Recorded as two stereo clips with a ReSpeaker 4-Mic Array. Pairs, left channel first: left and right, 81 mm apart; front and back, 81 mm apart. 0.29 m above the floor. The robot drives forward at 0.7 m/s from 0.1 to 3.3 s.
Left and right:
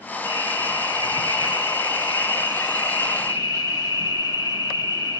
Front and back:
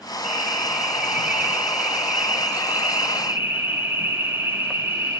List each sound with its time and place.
0.2 s an alarm: 95° right, 5.5 m; by 5.2 s 120° right, 6 m